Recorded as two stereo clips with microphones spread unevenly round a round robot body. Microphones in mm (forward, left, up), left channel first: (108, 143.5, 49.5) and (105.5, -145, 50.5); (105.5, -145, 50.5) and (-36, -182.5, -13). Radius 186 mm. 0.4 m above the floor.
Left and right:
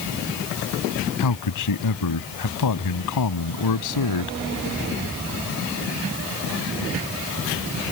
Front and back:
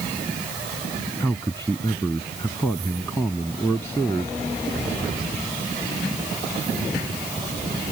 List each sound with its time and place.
1.2 s a man speaking: 105° left